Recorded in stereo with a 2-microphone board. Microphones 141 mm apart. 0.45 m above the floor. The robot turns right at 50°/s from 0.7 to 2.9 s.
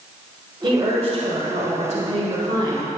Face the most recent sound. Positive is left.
turn(degrees=-25)